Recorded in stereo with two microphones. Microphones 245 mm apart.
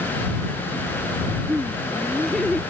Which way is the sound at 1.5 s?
5° right (ahead or behind).